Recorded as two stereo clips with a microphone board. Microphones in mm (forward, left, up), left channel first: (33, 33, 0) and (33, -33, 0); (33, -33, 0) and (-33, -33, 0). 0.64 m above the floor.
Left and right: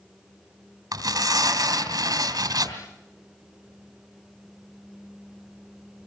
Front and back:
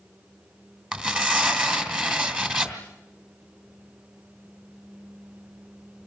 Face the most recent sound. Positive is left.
turn(degrees=-105)